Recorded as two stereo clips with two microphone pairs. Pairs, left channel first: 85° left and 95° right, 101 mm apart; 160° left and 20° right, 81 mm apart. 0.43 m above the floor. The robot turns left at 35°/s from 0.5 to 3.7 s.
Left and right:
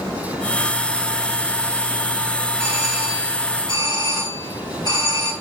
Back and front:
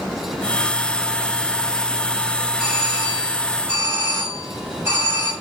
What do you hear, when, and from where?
2.6 s a doorbell: 75° left, 6 m; by 5.3 s 35° left, 6 m